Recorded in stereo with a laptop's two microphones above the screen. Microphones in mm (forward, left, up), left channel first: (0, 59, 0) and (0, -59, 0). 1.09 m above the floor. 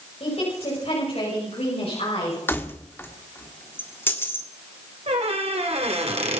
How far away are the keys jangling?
About 1.5 m.